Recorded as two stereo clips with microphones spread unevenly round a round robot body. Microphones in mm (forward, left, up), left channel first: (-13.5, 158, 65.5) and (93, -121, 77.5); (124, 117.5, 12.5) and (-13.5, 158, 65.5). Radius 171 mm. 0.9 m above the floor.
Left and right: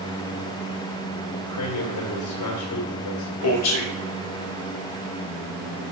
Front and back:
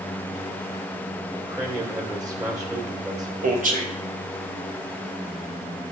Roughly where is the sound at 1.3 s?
Left.